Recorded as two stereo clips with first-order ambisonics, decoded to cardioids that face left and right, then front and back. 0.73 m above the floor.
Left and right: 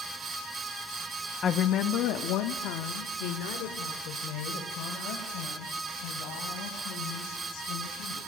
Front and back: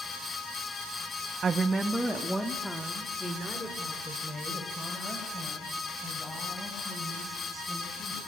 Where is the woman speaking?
130° left, 0.5 m; by 8.2 s 80° left, 5.5 m.